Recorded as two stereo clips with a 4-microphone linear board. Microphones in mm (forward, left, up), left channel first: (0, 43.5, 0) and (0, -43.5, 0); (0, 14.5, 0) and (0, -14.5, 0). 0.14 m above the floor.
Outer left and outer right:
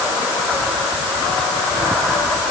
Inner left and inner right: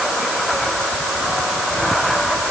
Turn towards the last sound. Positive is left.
No sound to turn to.